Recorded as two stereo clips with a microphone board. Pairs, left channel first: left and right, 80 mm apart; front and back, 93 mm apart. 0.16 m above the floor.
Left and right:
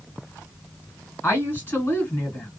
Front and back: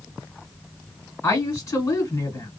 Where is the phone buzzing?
No phone buzzing in this recording.